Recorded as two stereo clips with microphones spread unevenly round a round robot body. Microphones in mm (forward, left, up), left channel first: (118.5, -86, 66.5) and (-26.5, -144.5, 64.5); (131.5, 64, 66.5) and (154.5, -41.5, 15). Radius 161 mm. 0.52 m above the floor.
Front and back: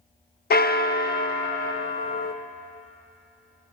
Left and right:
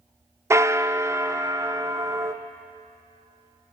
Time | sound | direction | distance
0.5 | a bell | 5° right | 0.5 m